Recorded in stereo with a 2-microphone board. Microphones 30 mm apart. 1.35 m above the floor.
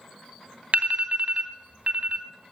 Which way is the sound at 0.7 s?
60° right (ahead or behind).